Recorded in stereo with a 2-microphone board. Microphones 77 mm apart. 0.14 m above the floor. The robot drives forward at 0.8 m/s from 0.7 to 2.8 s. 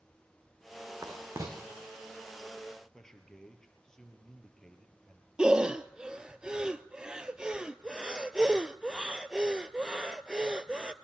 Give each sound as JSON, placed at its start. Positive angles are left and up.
{"t": 1.0, "sound": "writing", "side_deg": -40, "distance_m": 4.0}
{"t": 2.9, "sound": "a man speaking", "side_deg": 5, "distance_m": 3.0}
{"t": 5.4, "sound": "breathing", "side_deg": -10, "distance_m": 0.6}